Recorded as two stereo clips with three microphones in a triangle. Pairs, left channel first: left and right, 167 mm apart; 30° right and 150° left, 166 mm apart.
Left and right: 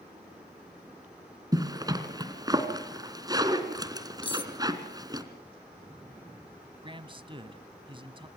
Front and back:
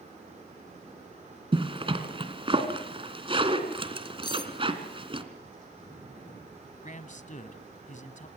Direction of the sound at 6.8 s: 40° right.